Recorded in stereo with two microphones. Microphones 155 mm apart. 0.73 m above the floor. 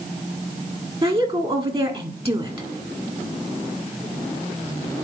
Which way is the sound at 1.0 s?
35° right (ahead or behind).